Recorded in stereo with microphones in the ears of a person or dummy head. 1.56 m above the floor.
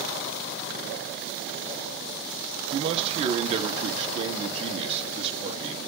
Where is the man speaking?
25° right (ahead or behind), 1.5 m.